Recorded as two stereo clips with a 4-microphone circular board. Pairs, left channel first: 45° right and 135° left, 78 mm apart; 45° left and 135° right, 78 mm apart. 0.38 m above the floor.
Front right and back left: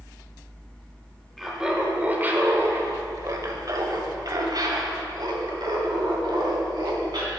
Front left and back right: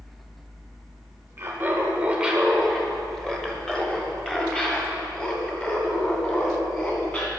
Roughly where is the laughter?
Behind right.